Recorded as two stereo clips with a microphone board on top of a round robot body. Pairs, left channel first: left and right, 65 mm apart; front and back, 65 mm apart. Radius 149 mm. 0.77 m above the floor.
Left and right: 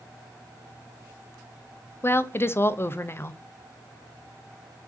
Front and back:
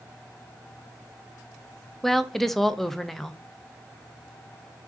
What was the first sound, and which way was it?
A woman speaking, 85° left.